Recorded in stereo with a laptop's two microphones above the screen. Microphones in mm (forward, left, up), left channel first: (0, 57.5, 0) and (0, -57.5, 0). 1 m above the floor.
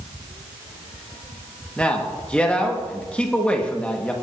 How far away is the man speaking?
About 1.2 m.